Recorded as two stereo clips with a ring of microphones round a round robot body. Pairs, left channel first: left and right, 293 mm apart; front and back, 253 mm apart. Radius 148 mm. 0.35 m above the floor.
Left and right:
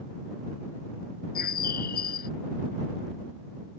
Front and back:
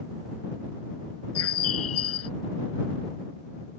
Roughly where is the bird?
Ahead left.